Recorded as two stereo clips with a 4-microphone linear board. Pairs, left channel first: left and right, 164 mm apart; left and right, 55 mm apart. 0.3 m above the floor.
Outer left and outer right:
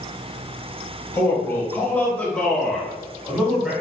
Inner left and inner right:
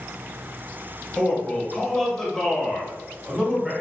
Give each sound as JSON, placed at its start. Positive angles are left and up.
{"t": 1.1, "sound": "a man speaking", "side_deg": 15, "distance_m": 1.3}